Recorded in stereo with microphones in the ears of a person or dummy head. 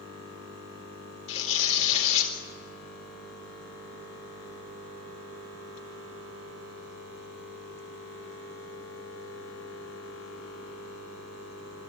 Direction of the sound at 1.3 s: 35° left (ahead or behind).